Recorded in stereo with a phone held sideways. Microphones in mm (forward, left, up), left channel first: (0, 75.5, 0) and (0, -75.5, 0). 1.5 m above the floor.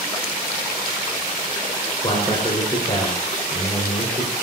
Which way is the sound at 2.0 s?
35° left (ahead or behind).